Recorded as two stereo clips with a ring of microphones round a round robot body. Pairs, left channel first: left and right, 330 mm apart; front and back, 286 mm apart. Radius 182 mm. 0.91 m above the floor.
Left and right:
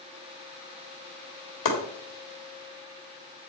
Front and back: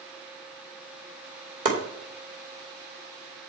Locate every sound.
1.6 s chopping: 120° left, 2.5 m